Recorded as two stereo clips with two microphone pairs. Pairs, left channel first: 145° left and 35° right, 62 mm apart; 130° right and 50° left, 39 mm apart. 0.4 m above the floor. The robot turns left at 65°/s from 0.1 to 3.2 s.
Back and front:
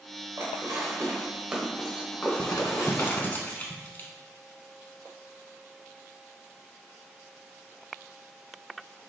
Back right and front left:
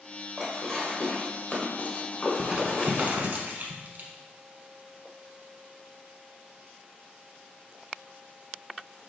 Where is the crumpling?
135° left, 0.8 m; by 4.1 s 85° left, 0.8 m.